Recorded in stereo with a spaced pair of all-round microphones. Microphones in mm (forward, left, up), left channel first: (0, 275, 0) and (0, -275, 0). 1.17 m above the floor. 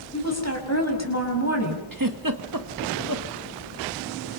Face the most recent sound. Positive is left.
turn(degrees=-35)  # may be behind; listen again after turning